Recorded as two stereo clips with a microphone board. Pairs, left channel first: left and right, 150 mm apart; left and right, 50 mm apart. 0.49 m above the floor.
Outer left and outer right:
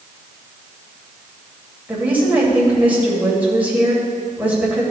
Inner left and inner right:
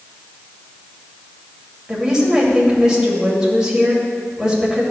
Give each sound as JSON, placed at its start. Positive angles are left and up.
{"t": 1.9, "sound": "a woman speaking", "side_deg": -10, "distance_m": 2.5}